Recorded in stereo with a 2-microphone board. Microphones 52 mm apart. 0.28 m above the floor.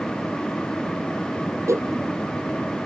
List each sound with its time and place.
1.7 s a whoosh: 70° right (ahead or behind)